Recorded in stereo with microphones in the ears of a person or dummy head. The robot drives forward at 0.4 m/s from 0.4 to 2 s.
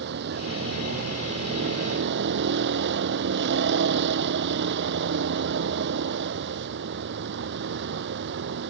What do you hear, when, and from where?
0.0 s a vehicle: 65° right (ahead or behind)